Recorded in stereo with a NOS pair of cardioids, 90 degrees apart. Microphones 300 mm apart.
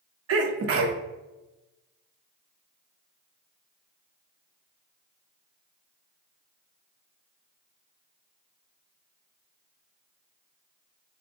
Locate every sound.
0.3 s a sneeze: 50° right, 0.8 m